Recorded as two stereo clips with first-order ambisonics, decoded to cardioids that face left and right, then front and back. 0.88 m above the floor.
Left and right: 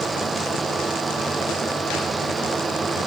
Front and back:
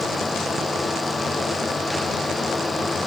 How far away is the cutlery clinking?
I don't hear cutlery clinking.